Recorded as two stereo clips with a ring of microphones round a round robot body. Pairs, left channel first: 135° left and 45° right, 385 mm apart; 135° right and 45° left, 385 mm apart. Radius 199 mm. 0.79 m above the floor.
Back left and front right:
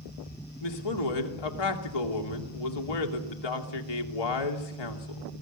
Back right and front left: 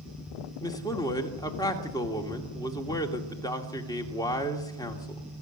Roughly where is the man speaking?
Behind left.